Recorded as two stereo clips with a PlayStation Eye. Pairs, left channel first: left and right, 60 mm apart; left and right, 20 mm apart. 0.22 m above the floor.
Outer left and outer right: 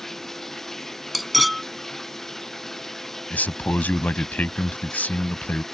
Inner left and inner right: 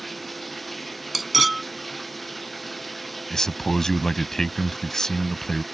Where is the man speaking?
30° left (ahead or behind).